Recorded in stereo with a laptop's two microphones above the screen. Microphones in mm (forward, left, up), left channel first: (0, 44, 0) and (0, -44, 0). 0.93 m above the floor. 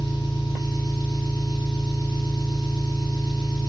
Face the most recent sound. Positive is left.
turn(degrees=65)  # may be behind; listen again after turning